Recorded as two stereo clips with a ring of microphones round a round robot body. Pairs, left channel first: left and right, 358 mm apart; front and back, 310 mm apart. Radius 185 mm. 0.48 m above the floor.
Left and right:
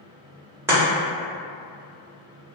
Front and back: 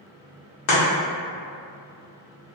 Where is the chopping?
10° right, 1.0 m.